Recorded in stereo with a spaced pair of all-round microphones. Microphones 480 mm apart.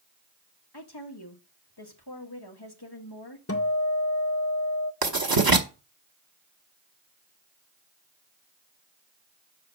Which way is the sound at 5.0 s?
45° right (ahead or behind).